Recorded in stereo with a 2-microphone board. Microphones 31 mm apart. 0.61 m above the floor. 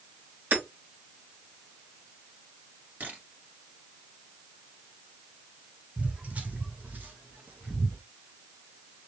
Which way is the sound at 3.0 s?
70° right (ahead or behind).